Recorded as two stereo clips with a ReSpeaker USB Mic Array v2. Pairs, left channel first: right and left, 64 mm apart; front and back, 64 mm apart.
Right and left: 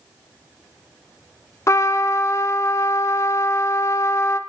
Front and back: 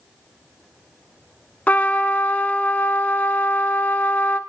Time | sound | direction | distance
1.7 | a trumpet | 65° right | 0.9 m